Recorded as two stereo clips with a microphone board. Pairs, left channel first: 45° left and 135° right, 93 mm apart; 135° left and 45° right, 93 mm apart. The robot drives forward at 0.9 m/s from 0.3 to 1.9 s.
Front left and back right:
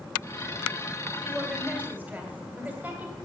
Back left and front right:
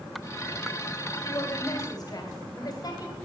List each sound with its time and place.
1.2 s a woman speaking: 150° left, 1.7 m; by 3.2 s 160° left, 2 m